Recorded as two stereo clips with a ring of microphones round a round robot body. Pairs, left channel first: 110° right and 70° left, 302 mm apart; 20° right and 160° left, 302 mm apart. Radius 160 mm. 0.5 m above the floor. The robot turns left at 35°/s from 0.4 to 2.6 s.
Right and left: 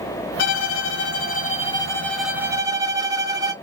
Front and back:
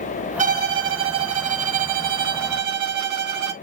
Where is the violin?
140° right, 0.6 m; by 3.5 s 145° left, 0.6 m.